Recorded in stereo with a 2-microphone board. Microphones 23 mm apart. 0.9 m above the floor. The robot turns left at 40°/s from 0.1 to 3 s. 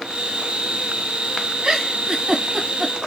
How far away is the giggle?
About 1.2 m.